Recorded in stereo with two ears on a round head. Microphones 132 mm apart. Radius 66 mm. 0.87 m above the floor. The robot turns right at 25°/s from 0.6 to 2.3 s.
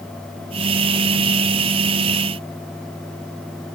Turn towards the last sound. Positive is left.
No sound to turn to.